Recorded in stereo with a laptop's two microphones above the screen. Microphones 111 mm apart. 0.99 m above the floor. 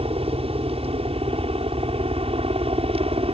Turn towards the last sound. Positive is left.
turn(degrees=-60)  # may be behind; listen again after turning